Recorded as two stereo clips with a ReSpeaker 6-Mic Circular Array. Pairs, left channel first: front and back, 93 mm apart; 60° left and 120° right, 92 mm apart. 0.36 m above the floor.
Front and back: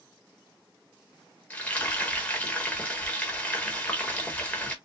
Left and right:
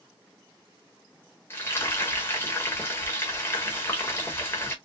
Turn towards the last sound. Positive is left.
turn(degrees=55)